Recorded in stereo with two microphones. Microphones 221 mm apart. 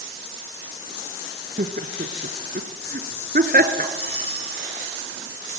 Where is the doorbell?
40° right (ahead or behind), 10 m.